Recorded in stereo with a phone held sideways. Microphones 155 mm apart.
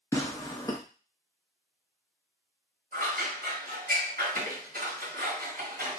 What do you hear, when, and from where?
0.1 s tearing paper: 20° left (ahead or behind), 0.9 m
2.9 s scissors: 75° right (ahead or behind), 1.4 m